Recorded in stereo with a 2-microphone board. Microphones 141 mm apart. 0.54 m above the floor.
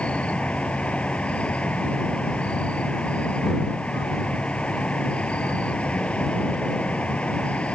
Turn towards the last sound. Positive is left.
turn(degrees=10)  # may be behind; listen again after turning